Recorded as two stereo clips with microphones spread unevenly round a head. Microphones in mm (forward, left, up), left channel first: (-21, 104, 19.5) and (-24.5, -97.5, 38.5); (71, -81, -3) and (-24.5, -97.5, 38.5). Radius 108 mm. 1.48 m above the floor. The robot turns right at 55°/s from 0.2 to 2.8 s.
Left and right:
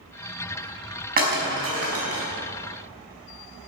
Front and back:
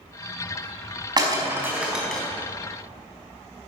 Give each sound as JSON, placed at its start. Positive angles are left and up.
{"t": 1.2, "sound": "breaking glass", "azimuth_deg": -135, "distance_m": 5.0}